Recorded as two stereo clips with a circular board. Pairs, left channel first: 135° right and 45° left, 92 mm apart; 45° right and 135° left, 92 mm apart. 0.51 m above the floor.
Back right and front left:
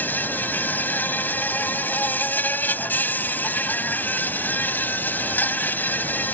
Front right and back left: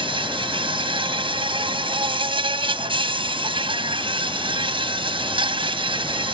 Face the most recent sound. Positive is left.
turn(degrees=155)